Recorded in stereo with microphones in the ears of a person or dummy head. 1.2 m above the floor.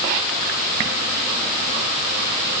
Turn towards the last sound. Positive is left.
No sound to turn to.